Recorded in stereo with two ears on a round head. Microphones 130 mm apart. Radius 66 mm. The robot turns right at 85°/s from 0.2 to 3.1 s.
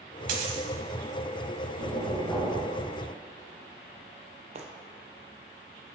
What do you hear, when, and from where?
0.3 s a dropped coin: 65° right, 1.3 m; by 0.7 s 35° right, 1.3 m
1.8 s knocking: 110° left, 3 m; by 2.7 s 175° right, 3 m
4.5 s footsteps: 45° right (ahead or behind), 1.0 m